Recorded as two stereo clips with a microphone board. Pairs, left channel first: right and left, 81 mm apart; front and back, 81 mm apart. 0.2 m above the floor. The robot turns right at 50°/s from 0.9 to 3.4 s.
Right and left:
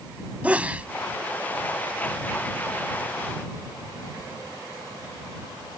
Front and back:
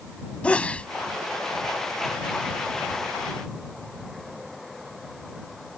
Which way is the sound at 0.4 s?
50° left.